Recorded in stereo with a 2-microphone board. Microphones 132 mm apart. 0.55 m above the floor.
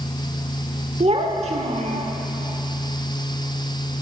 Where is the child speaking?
55° right (ahead or behind), 0.7 m.